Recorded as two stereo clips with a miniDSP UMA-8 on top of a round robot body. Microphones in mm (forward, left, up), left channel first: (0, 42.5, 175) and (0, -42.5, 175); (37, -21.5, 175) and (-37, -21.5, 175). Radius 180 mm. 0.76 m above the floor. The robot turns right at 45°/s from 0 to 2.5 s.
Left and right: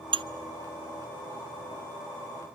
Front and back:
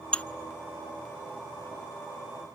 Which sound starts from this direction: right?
Dishes clattering, at 0.1 s.